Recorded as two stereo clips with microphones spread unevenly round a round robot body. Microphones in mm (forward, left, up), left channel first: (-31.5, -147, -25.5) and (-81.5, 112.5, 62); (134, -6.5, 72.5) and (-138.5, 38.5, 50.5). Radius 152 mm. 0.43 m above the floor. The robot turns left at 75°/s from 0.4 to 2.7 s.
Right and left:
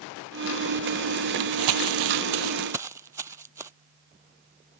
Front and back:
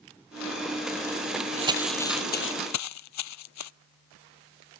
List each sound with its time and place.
1.6 s crumpling: 105° left; by 3.7 s 20° left